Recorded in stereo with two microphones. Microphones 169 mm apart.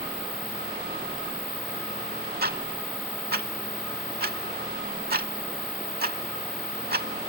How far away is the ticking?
About 0.7 m.